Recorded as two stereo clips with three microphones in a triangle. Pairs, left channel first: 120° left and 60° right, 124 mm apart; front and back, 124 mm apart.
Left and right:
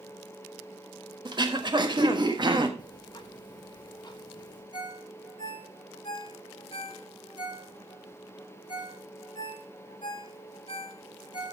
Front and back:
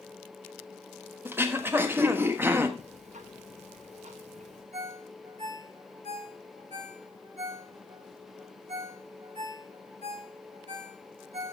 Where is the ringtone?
165° left, 4.5 m.